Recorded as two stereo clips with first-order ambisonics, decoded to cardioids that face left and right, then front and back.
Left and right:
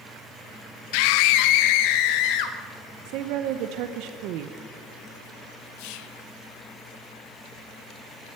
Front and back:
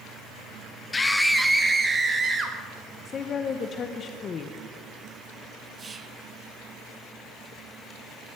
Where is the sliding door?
I don't hear a sliding door.